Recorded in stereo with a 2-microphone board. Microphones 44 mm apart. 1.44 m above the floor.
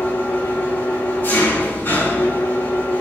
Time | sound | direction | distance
0.0 | an engine running | 50° left (ahead or behind) | 5.5 m